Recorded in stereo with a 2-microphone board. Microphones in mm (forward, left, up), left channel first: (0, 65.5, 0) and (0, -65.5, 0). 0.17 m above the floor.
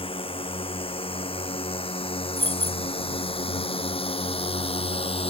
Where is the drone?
45° left (ahead or behind).